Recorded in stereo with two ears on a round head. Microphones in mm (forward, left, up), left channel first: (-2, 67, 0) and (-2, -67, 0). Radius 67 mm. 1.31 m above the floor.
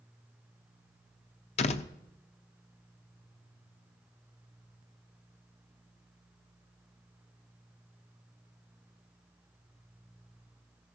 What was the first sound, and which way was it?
A door slam, 45° left (ahead or behind).